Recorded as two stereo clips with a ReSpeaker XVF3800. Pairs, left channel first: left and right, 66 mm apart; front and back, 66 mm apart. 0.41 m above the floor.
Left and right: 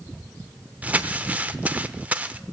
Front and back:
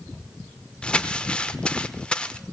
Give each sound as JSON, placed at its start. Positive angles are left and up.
{"t": 0.8, "sound": "crumpling", "azimuth_deg": -55, "distance_m": 0.6}